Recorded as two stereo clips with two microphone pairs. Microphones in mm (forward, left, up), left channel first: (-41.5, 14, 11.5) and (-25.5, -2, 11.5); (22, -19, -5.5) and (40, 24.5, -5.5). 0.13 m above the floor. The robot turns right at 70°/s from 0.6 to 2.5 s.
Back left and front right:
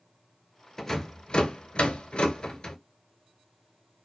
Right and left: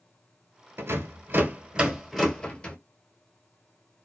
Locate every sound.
0.8 s a rattle: 60° left, 0.7 m; by 2.8 s straight behind, 0.7 m